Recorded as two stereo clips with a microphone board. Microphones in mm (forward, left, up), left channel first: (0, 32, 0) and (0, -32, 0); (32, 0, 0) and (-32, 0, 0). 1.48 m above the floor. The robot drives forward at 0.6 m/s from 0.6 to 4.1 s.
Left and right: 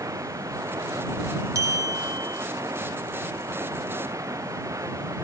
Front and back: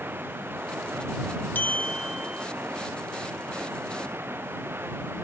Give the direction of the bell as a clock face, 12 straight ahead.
2 o'clock.